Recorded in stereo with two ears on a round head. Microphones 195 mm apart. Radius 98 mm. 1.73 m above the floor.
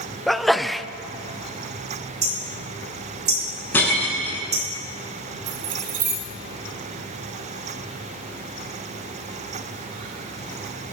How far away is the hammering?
About 4.5 m.